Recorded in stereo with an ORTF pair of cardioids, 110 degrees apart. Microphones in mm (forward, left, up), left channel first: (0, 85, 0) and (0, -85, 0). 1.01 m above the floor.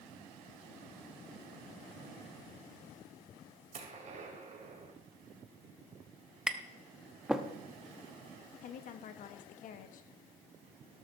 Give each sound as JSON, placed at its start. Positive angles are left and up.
{"t": 3.7, "sound": "a gunshot", "azimuth_deg": -45, "distance_m": 2.5}
{"t": 6.5, "sound": "tapping", "azimuth_deg": -5, "distance_m": 0.9}
{"t": 8.6, "sound": "a woman speaking", "azimuth_deg": 55, "distance_m": 1.5}